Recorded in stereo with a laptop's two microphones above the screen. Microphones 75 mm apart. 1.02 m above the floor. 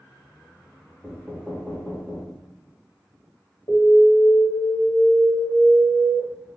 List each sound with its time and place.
1.0 s knocking: 5° left (ahead or behind), 0.8 m
3.7 s an alarm: 50° left (ahead or behind), 1.4 m